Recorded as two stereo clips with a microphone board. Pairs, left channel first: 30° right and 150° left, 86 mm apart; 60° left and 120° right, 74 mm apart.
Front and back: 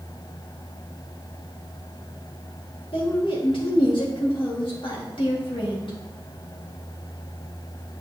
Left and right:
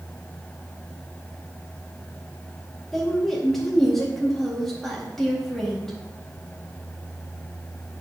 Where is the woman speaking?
25° right, 1.9 m.